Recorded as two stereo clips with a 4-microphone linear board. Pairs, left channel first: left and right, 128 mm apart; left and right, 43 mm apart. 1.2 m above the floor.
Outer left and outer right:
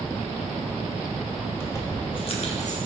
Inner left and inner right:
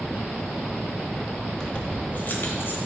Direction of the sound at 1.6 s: 15° left (ahead or behind).